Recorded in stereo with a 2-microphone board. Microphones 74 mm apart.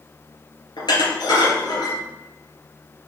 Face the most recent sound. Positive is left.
turn(degrees=65)  # may be behind; listen again after turning